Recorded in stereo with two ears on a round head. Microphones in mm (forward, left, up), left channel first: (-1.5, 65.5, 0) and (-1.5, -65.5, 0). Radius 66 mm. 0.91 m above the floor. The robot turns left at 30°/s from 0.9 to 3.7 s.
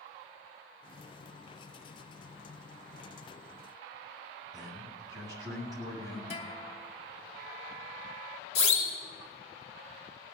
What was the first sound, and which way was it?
A man speaking, 25° right (ahead or behind).